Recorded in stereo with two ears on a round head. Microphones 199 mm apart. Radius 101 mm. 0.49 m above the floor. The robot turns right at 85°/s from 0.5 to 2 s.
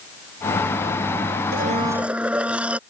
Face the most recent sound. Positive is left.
turn(degrees=-5)